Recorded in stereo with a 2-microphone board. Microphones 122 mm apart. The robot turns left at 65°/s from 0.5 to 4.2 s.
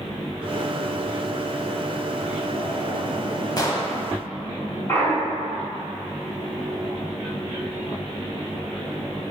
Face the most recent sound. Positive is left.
turn(degrees=20)  # may be behind; listen again after turning